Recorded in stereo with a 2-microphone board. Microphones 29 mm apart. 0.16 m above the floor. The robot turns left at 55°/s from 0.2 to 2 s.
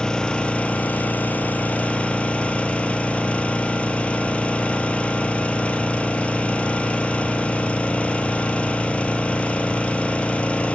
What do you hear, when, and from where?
0.0 s an engine running: 150° left, 1.3 m; by 10.8 s 50° left, 1.3 m